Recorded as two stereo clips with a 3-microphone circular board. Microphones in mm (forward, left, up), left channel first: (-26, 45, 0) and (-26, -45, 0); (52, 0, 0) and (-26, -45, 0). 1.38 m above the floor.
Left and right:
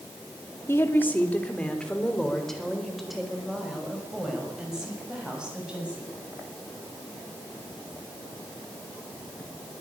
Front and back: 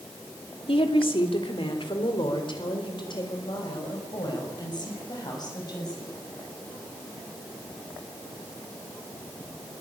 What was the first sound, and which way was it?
A woman speaking, 30° left.